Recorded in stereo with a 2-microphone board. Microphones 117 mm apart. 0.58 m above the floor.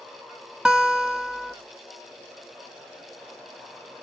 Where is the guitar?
5° right (ahead or behind), 0.5 m.